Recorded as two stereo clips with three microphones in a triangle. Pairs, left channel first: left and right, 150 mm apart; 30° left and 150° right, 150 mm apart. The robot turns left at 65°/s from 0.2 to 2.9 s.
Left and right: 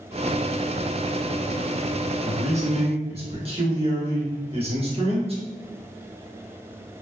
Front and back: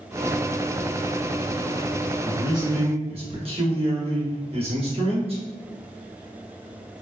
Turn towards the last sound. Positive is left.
turn(degrees=-120)